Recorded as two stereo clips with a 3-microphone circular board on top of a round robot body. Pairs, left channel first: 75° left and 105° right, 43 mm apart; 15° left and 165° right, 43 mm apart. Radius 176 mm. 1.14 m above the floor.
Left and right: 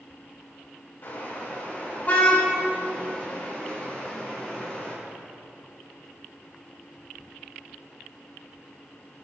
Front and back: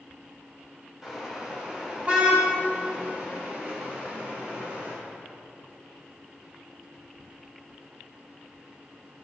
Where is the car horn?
120° left, 4.5 m; by 4.9 s 150° left, 8.5 m.